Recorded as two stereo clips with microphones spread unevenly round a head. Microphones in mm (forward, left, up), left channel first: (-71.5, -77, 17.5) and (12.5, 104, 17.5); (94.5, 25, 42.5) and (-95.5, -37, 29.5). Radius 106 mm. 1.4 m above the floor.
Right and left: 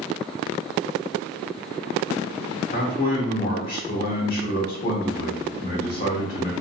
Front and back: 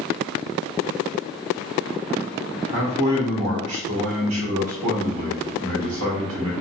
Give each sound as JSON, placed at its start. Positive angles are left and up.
{"t": 2.7, "sound": "a man speaking", "azimuth_deg": -160, "distance_m": 1.6}